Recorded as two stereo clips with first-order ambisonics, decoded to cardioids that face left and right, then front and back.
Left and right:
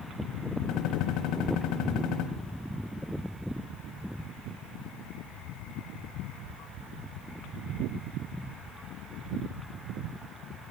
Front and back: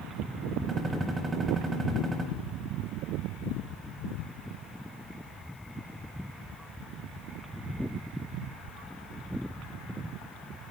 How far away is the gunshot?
About 1.3 m.